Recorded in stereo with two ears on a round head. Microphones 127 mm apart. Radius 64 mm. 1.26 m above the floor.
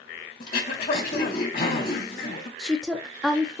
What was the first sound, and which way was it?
Throat clearing, 65° left (ahead or behind).